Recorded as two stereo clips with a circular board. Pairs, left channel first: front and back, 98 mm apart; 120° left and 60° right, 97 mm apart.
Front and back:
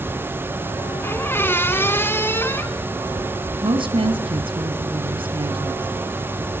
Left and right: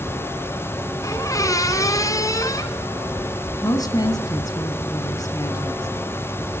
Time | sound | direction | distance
1.0 | a squeak | 65° left | 1.8 m
3.6 | a woman speaking | 165° left | 2.5 m